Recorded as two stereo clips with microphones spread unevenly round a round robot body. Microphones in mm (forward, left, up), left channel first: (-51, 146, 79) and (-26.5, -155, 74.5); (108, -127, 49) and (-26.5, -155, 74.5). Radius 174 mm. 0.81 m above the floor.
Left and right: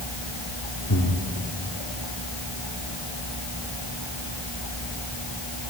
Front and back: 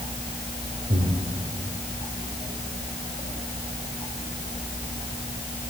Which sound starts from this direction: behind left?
Breathing, at 0.9 s.